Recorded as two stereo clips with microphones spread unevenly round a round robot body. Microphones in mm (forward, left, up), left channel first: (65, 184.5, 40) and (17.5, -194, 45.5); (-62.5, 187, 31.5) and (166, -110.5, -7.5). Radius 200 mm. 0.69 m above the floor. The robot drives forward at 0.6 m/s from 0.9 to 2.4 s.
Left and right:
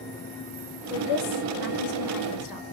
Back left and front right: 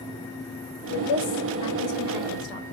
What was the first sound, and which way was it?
A woman speaking, 110° left.